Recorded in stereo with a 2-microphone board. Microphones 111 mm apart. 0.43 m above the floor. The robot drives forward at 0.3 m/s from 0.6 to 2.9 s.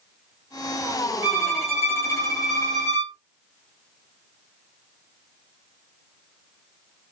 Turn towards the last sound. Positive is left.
turn(degrees=20)  # may be behind; listen again after turning